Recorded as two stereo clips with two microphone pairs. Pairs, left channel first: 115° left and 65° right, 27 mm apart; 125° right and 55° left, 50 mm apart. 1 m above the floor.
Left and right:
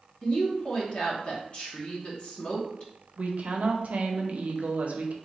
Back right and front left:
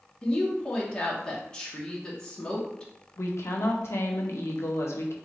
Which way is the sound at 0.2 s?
160° left.